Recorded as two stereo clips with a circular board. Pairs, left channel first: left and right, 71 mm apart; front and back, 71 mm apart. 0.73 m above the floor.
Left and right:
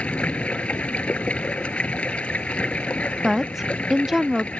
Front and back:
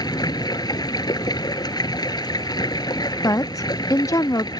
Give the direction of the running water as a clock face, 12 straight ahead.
11 o'clock.